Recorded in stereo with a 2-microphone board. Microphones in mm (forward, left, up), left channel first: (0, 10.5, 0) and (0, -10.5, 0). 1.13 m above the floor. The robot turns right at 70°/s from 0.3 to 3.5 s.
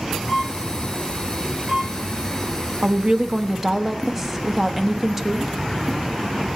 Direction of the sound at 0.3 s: 30° left (ahead or behind).